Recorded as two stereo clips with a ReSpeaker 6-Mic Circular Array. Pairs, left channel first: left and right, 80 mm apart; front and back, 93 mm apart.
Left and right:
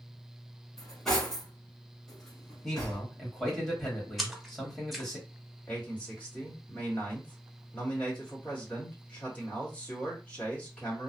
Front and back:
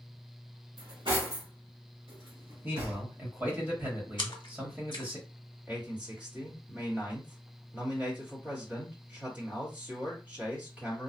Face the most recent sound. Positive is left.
turn(degrees=135)